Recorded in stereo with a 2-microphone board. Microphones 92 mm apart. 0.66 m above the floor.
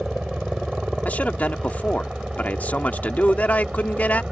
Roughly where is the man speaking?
Centre.